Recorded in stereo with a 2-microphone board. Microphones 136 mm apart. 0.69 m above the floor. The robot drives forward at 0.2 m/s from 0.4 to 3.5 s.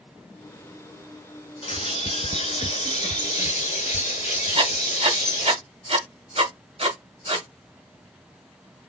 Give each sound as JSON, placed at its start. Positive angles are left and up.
{"t": 1.6, "sound": "a bird", "side_deg": 55, "distance_m": 1.5}
{"t": 4.5, "sound": "writing", "side_deg": -50, "distance_m": 1.9}